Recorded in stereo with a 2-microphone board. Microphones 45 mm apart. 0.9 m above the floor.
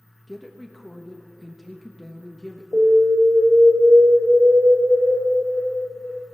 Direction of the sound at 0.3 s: Centre (ahead or behind).